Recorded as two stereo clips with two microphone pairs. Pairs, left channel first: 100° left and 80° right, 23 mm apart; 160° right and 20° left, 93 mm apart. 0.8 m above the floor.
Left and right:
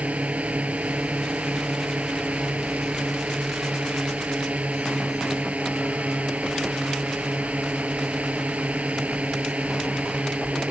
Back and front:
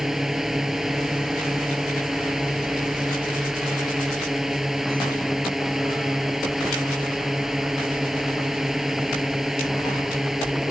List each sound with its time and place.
0.0 s a drone: 70° right